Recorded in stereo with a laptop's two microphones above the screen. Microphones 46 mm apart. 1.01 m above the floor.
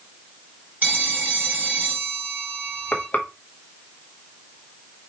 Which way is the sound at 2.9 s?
40° left (ahead or behind).